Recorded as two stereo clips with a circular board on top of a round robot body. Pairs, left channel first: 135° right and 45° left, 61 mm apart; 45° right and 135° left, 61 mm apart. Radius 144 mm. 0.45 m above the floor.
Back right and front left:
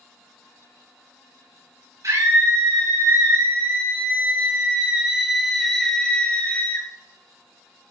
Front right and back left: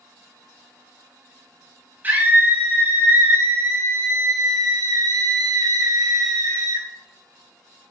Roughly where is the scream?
Left.